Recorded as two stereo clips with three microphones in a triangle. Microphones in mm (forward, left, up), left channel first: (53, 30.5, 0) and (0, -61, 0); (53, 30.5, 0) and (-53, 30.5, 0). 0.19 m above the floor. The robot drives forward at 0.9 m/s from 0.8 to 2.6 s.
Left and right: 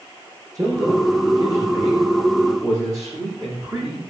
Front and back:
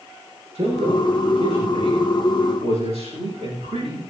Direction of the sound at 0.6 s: 175° right.